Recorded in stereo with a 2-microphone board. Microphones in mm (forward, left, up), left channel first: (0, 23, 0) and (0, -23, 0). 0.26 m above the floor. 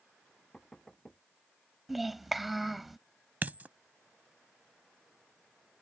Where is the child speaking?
5° right (ahead or behind).